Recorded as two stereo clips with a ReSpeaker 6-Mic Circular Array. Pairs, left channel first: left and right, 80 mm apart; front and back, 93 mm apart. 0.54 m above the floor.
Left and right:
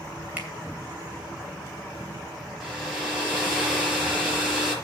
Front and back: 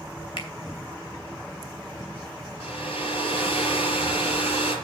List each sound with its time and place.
0.4 s a finger snap: 20° right, 2.5 m
2.6 s a hair dryer: 5° right, 4.5 m